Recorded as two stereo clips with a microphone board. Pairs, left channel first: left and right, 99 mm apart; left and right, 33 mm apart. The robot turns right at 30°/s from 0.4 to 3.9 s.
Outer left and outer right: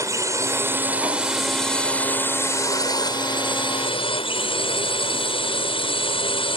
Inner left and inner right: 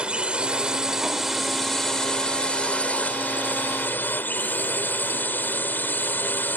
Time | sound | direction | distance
0.0 | a drone | 35° right | ?